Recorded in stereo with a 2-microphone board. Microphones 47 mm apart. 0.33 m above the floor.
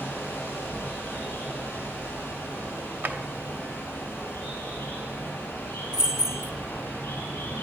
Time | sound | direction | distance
0.0 | running water | 50° left (ahead or behind) | 4.5 m
3.0 | a drawer | 45° right (ahead or behind) | 0.7 m
5.9 | keys jangling | 10° right (ahead or behind) | 0.5 m